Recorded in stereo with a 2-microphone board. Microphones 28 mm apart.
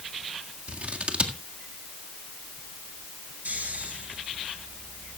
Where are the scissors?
50° right (ahead or behind), 1.7 m.